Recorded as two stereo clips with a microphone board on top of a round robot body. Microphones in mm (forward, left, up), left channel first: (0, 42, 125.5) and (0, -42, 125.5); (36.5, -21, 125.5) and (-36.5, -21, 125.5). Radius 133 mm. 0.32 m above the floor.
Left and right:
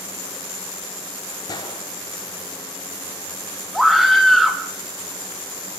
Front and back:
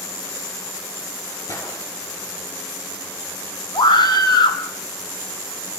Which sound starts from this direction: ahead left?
A gunshot, at 1.5 s.